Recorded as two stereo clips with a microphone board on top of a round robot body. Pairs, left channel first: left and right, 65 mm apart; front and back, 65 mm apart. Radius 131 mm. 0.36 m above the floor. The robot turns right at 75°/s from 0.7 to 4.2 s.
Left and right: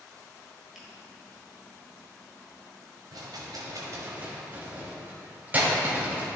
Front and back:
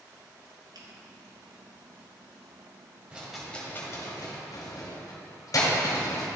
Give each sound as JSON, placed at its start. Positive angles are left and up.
{"t": 0.8, "sound": "a finger snap", "azimuth_deg": -175, "distance_m": 1.5}
{"t": 3.1, "sound": "a rattle", "azimuth_deg": -110, "distance_m": 1.4}